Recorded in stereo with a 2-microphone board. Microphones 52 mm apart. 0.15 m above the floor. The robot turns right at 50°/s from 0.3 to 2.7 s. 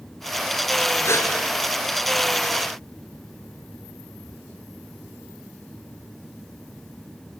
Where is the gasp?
50° left (ahead or behind), 3 m; by 1.3 s 55° left (ahead or behind), 3 m.